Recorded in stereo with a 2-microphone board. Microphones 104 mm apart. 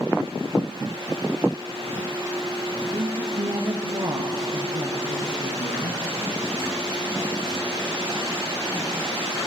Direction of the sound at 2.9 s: 60° right (ahead or behind).